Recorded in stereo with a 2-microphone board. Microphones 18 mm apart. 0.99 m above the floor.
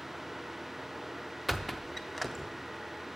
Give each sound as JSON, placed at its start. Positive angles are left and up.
{"t": 1.5, "sound": "a squeak", "side_deg": 5, "distance_m": 0.6}